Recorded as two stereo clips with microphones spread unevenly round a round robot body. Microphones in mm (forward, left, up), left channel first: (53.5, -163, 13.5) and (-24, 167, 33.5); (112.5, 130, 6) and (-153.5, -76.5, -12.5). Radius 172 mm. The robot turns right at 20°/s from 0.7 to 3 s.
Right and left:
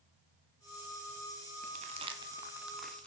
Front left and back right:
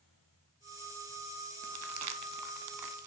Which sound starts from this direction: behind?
Crumpling, at 1.6 s.